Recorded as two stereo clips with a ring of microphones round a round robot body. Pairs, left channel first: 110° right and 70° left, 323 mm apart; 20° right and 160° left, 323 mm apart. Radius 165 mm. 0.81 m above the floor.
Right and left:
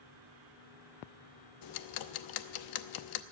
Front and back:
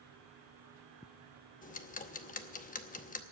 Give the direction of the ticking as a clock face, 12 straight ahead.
3 o'clock.